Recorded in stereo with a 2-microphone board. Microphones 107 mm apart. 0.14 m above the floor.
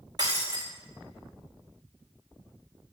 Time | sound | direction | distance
0.2 | breaking glass | 35° right (ahead or behind) | 3.5 m